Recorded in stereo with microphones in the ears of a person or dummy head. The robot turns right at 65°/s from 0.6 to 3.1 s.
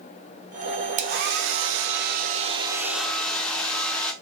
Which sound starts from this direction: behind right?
A hair dryer, at 1.0 s.